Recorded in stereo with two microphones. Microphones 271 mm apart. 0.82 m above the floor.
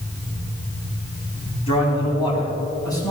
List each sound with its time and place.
1.7 s a man speaking: 20° left (ahead or behind), 5 m; by 3.1 s 15° left (ahead or behind), 5 m